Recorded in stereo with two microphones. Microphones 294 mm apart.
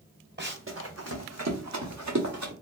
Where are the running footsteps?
40° right (ahead or behind), 1.0 m; by 2.5 s 85° right, 1.6 m.